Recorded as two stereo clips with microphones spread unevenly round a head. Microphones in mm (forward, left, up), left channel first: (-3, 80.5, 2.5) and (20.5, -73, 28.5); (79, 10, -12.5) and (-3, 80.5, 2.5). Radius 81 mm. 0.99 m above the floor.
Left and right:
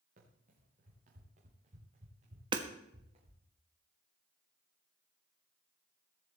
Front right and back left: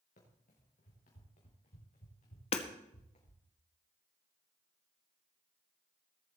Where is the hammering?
20° right, 1.4 m.